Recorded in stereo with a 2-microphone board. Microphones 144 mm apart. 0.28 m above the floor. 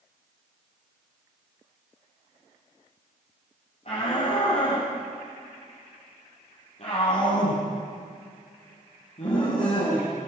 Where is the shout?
50° left (ahead or behind), 9.5 m.